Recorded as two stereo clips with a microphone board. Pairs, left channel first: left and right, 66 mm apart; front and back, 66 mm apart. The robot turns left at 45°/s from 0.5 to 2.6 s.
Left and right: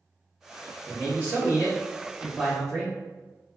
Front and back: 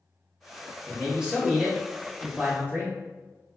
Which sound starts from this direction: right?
A man speaking, at 0.9 s.